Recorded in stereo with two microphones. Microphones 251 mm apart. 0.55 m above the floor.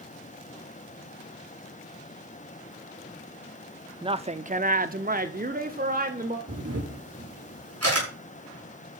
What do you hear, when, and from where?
4.0 s a woman speaking: 20° right (ahead or behind), 0.6 m; by 6.4 s 35° right (ahead or behind), 1.5 m
6.5 s a camera shutter: 65° right (ahead or behind), 6 m